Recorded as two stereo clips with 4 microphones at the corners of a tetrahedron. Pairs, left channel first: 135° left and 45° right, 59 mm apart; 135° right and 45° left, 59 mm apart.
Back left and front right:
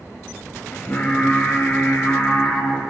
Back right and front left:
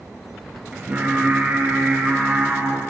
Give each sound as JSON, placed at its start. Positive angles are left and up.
{"t": 0.7, "sound": "singing", "azimuth_deg": 90, "distance_m": 1.4}